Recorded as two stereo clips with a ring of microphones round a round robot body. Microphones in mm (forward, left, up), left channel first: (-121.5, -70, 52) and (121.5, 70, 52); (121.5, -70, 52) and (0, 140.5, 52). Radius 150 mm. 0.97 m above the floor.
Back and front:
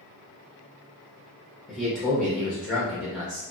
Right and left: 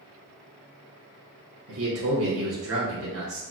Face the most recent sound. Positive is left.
turn(degrees=120)